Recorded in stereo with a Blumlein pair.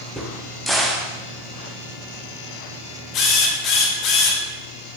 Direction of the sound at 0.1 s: Straight ahead.